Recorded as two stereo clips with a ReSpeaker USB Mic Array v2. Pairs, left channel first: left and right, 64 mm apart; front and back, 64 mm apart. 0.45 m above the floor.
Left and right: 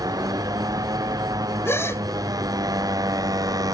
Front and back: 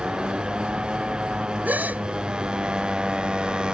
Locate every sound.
0.0 s a motorcycle: 105° right
1.6 s a gasp: 125° left